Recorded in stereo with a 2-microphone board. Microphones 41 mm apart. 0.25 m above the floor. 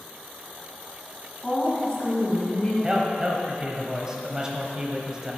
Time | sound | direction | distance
1.4 | a woman speaking | 20° left (ahead or behind) | 2 m
2.8 | a man speaking | 20° right (ahead or behind) | 0.9 m